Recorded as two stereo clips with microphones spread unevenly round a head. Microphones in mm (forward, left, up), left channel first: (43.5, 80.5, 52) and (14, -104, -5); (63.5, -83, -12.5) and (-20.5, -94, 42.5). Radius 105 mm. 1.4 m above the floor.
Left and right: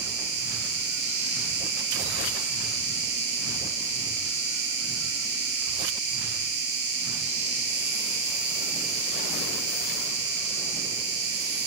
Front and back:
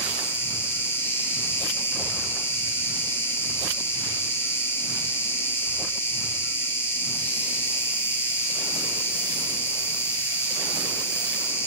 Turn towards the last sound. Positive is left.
turn(degrees=-100)